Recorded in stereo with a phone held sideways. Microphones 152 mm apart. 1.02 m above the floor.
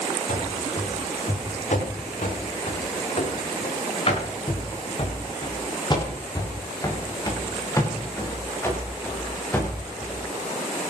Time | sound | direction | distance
0.3 | running footsteps | 65° left (ahead or behind) | 9 m